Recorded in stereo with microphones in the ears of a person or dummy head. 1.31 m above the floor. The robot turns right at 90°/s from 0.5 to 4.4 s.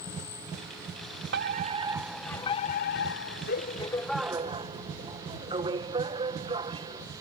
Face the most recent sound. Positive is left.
turn(degrees=-160)